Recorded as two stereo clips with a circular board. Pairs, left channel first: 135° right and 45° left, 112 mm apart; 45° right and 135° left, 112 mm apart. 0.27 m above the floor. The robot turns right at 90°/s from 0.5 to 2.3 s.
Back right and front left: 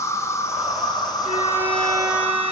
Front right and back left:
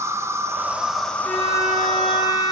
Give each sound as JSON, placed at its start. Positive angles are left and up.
{"t": 0.0, "sound": "an insect", "azimuth_deg": 180, "distance_m": 1.4}
{"t": 1.2, "sound": "a violin", "azimuth_deg": 35, "distance_m": 6.5}